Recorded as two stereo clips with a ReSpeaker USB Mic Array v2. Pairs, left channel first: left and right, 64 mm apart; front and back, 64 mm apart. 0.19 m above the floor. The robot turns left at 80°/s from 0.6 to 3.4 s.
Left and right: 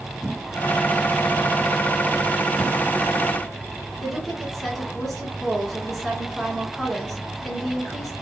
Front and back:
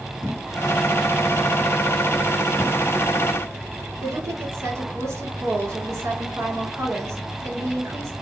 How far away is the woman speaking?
About 2.5 m.